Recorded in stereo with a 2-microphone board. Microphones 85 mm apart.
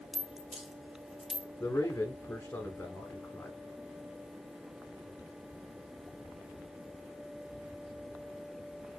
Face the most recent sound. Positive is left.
turn(degrees=20)  # may be behind; listen again after turning